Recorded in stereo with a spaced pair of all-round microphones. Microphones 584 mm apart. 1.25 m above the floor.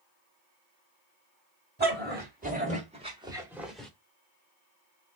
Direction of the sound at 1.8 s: 15° right (ahead or behind).